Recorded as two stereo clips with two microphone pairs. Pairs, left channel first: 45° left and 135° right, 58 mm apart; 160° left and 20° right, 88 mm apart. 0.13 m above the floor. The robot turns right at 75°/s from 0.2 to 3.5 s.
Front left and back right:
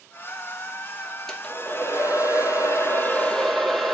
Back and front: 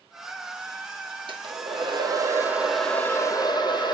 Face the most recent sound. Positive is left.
turn(degrees=130)